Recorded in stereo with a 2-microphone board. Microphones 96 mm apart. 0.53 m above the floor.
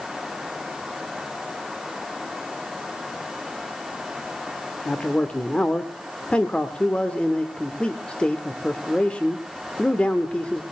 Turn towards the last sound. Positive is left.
turn(degrees=10)  # may be behind; listen again after turning